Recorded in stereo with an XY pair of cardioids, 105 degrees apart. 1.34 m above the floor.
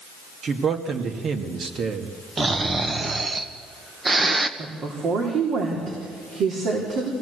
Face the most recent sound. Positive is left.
turn(degrees=-65)